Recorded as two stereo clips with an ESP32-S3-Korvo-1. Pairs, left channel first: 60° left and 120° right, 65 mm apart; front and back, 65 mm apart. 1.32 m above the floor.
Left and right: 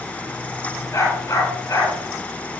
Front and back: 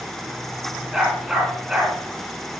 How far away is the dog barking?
About 6.5 m.